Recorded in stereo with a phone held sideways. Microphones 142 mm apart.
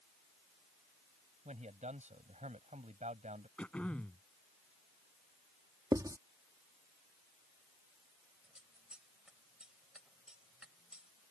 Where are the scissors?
5° right (ahead or behind).